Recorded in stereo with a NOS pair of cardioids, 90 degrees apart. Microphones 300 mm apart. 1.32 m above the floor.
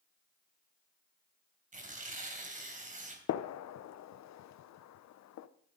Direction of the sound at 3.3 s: 65° left.